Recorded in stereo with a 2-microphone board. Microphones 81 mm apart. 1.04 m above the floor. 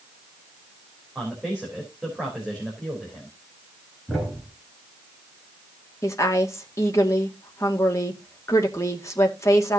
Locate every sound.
1.1 s a man speaking: 5° right (ahead or behind), 4 m
4.1 s a thud: centre (ahead or behind), 6 m
6.0 s a woman speaking: 35° left (ahead or behind), 2 m